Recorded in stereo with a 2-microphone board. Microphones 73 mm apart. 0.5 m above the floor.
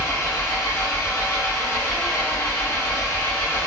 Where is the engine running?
40° left (ahead or behind), 0.7 m.